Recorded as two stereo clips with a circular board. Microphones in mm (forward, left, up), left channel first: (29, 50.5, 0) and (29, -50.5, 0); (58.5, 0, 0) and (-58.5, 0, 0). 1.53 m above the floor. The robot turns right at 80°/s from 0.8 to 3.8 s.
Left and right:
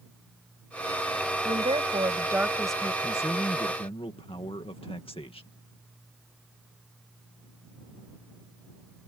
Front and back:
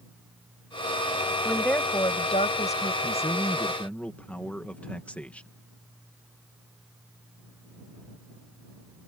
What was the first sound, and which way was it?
A woman speaking, 95° right.